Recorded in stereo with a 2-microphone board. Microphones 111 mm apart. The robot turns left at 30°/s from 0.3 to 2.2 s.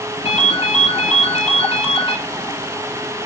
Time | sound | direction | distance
0.2 | a ringtone | 110° left | 2.5 m